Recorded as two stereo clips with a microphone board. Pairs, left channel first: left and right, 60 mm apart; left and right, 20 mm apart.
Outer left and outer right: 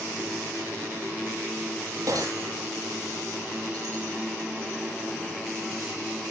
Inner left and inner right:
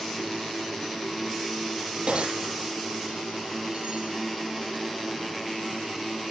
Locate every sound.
2.1 s breaking glass: 80° right, 10 m